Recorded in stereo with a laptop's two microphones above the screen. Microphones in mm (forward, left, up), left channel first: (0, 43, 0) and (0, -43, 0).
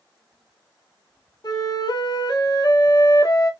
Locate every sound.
1.4 s a flute: 45° left (ahead or behind), 1.4 m